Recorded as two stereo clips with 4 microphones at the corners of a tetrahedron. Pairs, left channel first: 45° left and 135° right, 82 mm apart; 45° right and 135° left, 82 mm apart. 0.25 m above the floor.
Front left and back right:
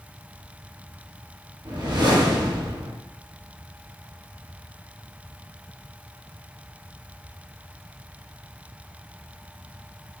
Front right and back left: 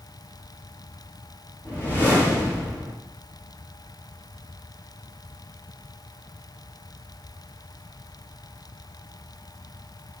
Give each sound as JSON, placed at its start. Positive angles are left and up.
{"t": 1.6, "sound": "a whoosh", "azimuth_deg": -110, "distance_m": 4.0}